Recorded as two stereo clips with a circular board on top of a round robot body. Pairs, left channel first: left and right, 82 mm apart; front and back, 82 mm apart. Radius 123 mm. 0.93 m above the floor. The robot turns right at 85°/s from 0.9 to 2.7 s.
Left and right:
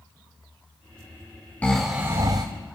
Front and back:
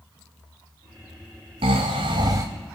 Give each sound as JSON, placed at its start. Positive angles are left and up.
{"t": 1.6, "sound": "snoring", "azimuth_deg": 165, "distance_m": 0.7}